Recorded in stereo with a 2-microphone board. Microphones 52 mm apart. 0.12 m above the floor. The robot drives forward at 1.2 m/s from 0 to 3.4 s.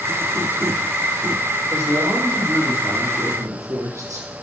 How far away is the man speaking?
About 5.5 m.